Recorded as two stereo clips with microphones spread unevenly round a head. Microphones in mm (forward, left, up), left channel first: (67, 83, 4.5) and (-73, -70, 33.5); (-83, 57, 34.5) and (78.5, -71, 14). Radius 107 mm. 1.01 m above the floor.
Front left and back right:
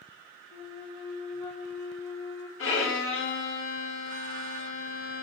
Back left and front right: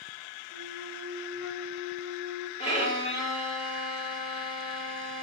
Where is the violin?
75° left, 3.5 m.